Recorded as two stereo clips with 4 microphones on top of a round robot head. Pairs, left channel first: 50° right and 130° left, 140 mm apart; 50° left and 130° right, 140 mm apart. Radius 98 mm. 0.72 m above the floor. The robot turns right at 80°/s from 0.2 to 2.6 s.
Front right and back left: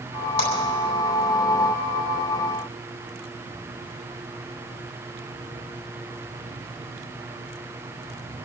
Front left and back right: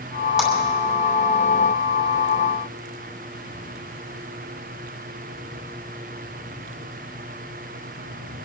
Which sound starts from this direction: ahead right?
A clap, at 0.4 s.